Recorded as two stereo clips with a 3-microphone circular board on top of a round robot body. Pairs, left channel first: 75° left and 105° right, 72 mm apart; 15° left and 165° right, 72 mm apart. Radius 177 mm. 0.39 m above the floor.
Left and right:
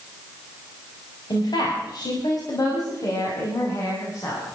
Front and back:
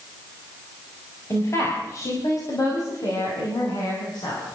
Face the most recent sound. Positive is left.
turn(degrees=25)